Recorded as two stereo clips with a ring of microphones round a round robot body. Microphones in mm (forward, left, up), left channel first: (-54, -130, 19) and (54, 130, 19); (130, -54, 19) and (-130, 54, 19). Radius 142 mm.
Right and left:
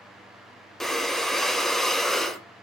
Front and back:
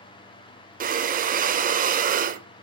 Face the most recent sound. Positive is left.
turn(degrees=160)